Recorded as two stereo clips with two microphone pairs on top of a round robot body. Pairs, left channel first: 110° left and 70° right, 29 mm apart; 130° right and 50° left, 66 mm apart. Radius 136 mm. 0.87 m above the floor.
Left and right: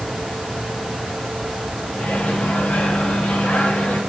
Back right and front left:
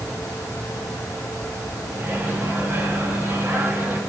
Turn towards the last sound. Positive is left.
turn(degrees=105)